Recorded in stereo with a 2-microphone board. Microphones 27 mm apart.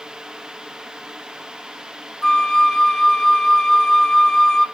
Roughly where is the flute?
Left.